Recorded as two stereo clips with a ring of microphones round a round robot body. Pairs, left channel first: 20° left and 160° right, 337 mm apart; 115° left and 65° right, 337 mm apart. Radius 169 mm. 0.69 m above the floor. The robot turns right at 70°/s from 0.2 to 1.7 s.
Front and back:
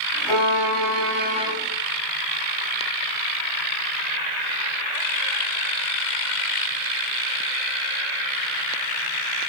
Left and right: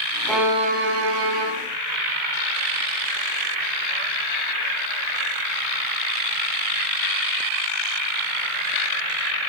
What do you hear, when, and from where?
0.3 s a violin: 165° right, 2 m; by 1.5 s 75° right, 2 m